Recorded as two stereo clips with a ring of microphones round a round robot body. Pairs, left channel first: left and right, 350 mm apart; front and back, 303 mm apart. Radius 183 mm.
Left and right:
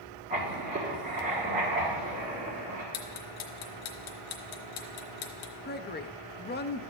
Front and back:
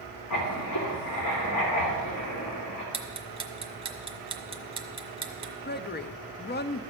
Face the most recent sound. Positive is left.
turn(degrees=40)